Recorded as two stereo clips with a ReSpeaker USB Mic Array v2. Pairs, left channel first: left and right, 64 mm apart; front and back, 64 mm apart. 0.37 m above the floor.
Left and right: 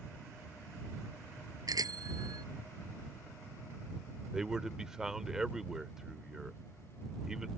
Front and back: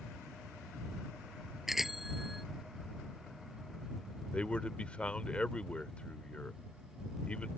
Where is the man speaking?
25° right.